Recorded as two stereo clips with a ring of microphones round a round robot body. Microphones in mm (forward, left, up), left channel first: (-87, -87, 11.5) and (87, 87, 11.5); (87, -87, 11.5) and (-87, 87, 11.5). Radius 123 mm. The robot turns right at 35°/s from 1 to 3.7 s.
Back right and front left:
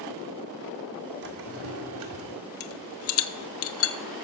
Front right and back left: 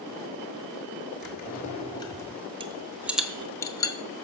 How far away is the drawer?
About 1.8 m.